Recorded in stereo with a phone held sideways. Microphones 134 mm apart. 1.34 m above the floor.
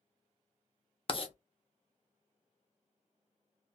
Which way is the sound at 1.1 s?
45° left (ahead or behind).